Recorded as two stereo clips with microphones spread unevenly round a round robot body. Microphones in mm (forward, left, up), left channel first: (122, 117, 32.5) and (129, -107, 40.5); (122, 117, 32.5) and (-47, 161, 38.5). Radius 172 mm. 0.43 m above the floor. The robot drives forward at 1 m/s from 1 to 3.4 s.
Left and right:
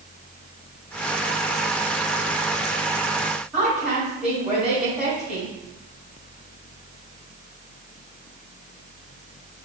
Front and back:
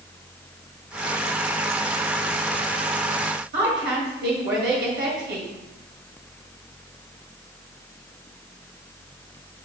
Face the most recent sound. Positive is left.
turn(degrees=-175)